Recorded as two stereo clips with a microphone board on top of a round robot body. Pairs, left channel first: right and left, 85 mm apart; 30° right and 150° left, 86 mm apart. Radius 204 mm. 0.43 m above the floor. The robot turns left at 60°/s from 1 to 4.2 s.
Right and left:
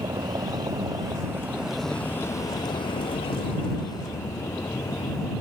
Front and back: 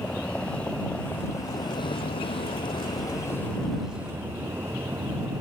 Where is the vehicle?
45° left; by 5.4 s 145° right.